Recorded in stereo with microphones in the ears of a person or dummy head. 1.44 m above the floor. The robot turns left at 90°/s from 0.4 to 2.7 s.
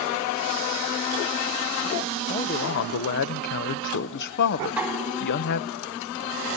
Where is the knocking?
5° right (ahead or behind), 4.5 m.